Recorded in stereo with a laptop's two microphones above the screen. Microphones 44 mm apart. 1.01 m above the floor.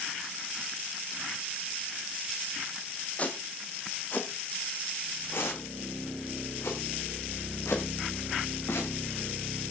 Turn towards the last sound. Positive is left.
turn(degrees=80)